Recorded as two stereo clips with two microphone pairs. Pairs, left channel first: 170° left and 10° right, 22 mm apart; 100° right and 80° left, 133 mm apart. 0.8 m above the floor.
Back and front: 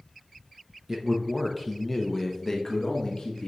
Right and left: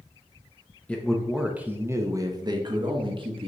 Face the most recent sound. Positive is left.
turn(degrees=115)